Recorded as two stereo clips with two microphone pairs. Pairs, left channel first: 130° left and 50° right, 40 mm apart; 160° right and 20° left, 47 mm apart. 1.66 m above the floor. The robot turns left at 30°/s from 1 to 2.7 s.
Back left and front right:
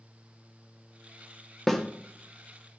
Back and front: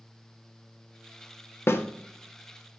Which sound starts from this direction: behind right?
A snare drum, at 1.7 s.